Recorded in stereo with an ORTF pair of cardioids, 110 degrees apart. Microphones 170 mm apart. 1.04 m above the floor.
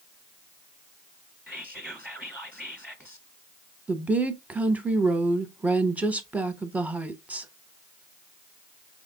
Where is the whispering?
Straight ahead, 1.0 m.